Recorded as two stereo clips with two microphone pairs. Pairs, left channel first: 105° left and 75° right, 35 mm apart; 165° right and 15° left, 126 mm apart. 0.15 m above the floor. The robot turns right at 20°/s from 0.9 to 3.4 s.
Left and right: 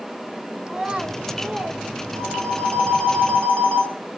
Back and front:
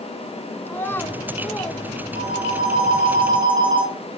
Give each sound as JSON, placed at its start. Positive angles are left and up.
{"t": 0.7, "sound": "a child speaking", "azimuth_deg": -115, "distance_m": 0.7}
{"t": 2.1, "sound": "a phone ringing", "azimuth_deg": 35, "distance_m": 3.0}